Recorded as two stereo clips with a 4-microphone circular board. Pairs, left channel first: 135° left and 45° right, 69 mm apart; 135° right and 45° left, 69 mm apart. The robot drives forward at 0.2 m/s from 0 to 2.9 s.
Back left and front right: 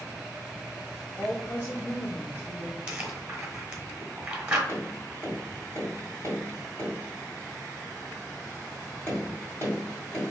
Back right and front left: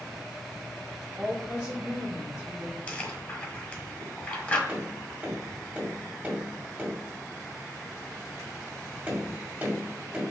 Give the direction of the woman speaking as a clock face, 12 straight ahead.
9 o'clock.